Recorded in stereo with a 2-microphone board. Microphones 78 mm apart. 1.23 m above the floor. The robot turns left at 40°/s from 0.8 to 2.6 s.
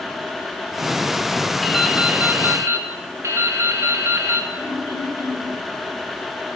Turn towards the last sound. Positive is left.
turn(degrees=55)  # may be behind; listen again after turning